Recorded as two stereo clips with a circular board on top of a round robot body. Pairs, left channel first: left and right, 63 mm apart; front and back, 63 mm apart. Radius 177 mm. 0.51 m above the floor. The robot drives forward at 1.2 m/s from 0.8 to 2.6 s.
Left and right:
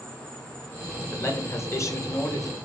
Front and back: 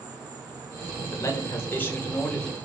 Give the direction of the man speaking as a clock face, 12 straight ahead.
11 o'clock.